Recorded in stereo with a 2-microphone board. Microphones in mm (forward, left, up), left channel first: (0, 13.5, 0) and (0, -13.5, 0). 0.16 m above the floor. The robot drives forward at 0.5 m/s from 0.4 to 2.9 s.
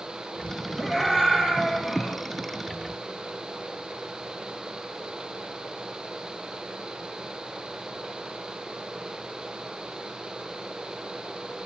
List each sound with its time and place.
0.8 s a scream: 10° right (ahead or behind), 3 m